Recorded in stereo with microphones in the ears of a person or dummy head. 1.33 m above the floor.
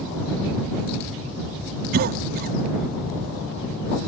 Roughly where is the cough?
Right.